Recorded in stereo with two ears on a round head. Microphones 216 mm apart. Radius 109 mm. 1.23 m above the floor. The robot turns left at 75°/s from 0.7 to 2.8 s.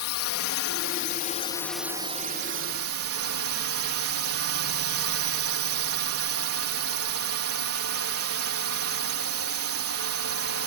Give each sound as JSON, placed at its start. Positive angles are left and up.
{"t": 0.0, "sound": "a drone", "azimuth_deg": 80}